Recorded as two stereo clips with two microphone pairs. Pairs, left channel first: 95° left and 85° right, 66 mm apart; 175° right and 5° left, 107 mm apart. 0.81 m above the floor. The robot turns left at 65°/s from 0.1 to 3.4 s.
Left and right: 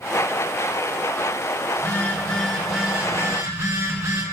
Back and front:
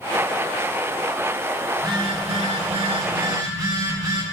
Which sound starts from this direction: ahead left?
A phone buzzing, at 1.7 s.